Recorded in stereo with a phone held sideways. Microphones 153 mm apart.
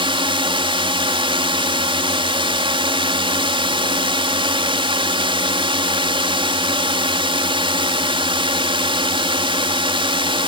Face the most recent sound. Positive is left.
turn(degrees=-35)  # may be behind; listen again after turning